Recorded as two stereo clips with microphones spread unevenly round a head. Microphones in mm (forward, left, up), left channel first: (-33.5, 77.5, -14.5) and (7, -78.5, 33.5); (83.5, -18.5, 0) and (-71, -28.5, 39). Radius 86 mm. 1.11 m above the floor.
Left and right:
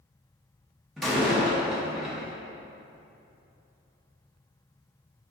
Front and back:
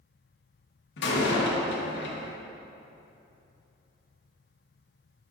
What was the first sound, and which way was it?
A door slam, 15° left.